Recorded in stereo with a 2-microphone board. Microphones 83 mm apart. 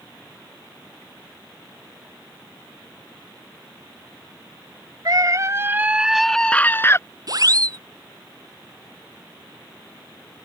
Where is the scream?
50° right (ahead or behind); by 7.0 s 35° left (ahead or behind).